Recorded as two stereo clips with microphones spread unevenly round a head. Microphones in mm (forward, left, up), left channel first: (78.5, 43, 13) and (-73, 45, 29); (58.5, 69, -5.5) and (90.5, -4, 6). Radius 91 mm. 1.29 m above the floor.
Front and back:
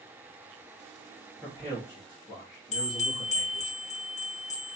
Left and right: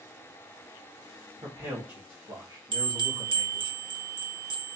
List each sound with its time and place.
1.4 s a man speaking: 95° right, 1.7 m; by 3.7 s 25° right, 2.0 m
2.7 s a bell: 40° right, 0.8 m